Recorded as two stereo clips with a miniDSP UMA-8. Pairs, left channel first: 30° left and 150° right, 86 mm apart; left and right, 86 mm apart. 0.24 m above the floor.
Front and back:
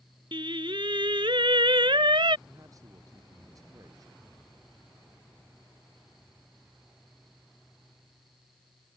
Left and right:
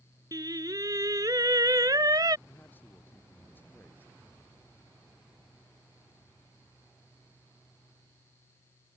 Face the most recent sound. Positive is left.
turn(degrees=160)